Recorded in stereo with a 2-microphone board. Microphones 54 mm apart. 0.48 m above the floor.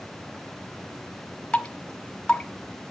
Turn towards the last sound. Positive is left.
turn(degrees=20)  # may be behind; listen again after turning